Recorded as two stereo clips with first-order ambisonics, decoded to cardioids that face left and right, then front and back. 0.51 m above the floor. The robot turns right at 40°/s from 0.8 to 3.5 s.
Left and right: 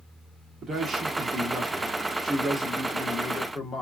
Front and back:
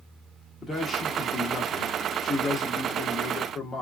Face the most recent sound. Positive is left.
turn(degrees=50)